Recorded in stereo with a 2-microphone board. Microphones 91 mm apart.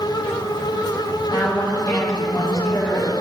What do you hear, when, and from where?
1.3 s a woman speaking: 35° left (ahead or behind), 3.5 m